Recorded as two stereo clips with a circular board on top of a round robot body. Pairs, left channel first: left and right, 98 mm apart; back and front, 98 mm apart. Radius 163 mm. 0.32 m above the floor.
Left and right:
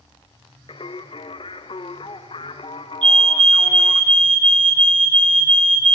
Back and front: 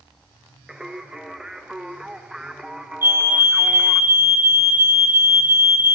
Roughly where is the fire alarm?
Ahead right.